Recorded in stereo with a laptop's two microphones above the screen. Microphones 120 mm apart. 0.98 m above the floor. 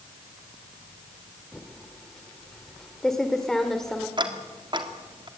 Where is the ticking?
40° right (ahead or behind), 2 m.